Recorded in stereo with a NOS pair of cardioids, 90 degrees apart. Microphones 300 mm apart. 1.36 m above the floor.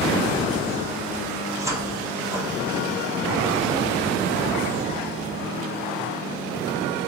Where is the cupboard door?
10° right, 0.9 m.